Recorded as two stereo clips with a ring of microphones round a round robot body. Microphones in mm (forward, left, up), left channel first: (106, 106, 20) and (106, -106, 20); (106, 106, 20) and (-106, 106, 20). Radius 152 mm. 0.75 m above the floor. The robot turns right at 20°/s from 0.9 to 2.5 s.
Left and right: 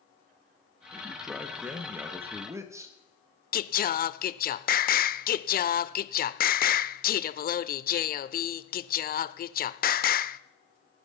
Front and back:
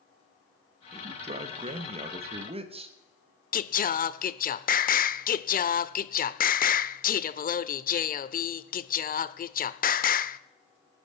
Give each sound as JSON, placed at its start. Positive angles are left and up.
{"t": 0.9, "sound": "a man speaking", "azimuth_deg": 175, "distance_m": 1.2}
{"t": 3.5, "sound": "singing", "azimuth_deg": 45, "distance_m": 0.6}